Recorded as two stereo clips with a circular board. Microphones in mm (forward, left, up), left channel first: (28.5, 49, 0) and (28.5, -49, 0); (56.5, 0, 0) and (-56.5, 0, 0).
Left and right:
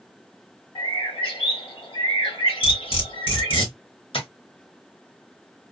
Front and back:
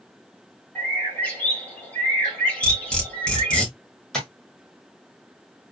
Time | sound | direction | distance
0.8 | a bird | 75° left | 1.7 m
2.6 | cutlery clinking | 80° left | 1.7 m
4.1 | tapping | 85° left | 1.4 m